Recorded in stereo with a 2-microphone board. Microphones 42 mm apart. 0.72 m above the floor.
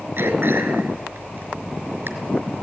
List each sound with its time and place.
0.2 s throat clearing: 65° right (ahead or behind), 4 m